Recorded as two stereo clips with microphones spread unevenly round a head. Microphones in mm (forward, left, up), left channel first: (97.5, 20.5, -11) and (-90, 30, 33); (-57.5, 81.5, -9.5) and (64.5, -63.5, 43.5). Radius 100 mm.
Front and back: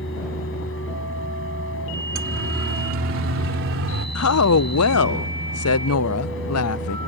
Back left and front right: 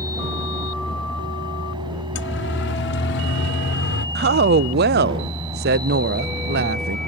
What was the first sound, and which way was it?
A fan, 15° left.